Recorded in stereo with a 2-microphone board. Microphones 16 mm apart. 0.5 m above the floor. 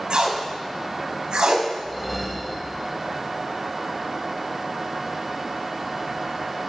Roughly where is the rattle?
I don't hear a rattle.